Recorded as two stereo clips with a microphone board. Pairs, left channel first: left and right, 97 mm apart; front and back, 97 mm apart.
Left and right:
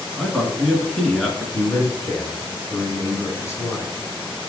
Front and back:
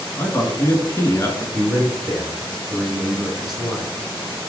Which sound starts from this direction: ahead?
A man speaking, at 0.1 s.